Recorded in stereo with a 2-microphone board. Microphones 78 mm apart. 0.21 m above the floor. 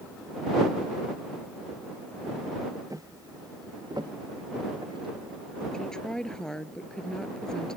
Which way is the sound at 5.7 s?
10° left (ahead or behind).